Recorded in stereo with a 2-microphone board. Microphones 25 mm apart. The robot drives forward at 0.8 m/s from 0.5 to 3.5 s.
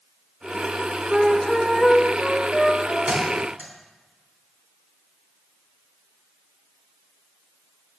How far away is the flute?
About 0.5 m.